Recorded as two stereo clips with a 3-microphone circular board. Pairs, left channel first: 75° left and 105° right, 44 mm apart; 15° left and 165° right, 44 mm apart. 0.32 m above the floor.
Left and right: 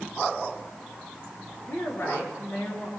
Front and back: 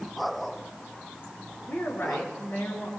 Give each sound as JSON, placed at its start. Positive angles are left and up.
{"t": 1.7, "sound": "a woman speaking", "azimuth_deg": 50, "distance_m": 5.5}